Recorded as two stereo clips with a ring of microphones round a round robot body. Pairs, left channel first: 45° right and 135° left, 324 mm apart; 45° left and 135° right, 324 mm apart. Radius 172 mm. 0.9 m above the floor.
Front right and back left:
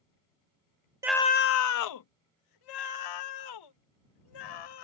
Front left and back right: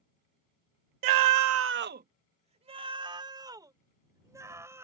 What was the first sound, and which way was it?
A scream, 145° right.